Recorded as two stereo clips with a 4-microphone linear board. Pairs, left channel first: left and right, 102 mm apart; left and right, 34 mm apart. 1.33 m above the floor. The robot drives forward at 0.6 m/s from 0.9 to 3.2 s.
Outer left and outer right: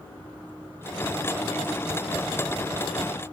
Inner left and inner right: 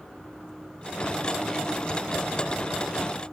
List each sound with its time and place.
Only background noise.